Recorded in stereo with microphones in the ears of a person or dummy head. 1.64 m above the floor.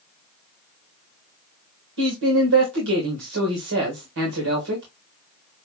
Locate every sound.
2.0 s a man speaking: 70° right (ahead or behind), 1.9 m